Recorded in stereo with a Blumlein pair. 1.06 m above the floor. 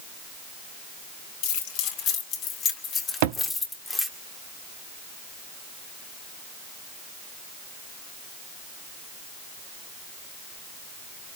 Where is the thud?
50° right, 1.1 m.